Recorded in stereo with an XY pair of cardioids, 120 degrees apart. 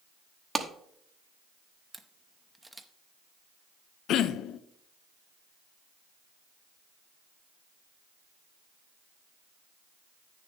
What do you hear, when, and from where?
0.6 s a clap: 20° right, 1.0 m
1.9 s a camera shutter: 5° right, 0.8 m
4.1 s throat clearing: 65° left, 0.5 m